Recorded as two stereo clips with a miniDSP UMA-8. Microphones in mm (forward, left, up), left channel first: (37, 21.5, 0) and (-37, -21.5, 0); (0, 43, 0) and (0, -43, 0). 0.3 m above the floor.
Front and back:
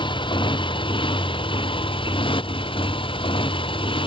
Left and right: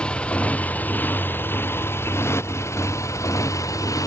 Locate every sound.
0.0 s a motorcycle: 10° left; by 4.1 s 40° left